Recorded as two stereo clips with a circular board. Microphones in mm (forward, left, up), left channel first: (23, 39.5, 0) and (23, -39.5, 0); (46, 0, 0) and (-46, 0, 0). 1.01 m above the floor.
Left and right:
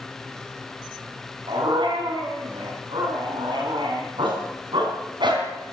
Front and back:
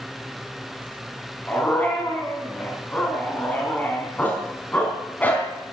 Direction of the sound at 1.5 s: 75° right.